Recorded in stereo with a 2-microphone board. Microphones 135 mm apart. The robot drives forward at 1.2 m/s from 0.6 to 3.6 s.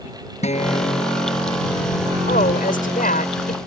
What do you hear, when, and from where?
0.4 s a guitar: 55° left (ahead or behind); by 2.2 s 65° left (ahead or behind)
2.3 s a woman speaking: 90° left; by 3.6 s 80° left